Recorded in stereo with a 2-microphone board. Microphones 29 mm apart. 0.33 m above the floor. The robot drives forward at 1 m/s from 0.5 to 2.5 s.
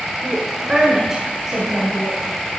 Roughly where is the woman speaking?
Right.